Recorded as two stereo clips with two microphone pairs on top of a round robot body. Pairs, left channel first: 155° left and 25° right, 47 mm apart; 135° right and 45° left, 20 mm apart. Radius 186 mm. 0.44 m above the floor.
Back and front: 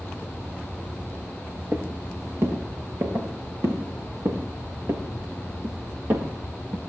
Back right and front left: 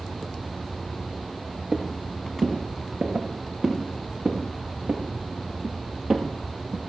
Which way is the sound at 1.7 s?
10° left.